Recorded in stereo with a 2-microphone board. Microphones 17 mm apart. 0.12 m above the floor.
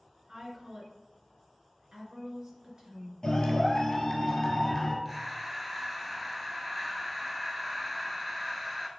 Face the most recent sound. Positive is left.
turn(degrees=-10)  # may be behind; listen again after turning